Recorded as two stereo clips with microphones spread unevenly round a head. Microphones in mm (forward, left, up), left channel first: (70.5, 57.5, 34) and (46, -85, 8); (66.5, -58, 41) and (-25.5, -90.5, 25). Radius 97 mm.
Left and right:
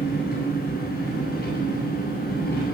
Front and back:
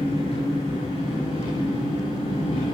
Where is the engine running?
75° left, 9.5 m.